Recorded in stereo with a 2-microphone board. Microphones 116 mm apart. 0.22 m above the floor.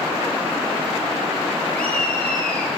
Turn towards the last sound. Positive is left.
turn(degrees=10)  # may be behind; listen again after turning